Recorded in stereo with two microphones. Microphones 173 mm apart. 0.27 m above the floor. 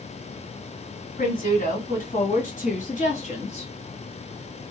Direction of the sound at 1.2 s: 55° left (ahead or behind).